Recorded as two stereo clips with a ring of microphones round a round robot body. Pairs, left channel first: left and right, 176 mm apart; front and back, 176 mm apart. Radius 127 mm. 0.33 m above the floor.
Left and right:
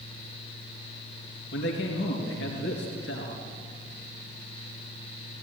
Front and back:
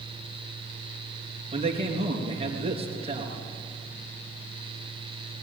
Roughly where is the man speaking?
Behind left.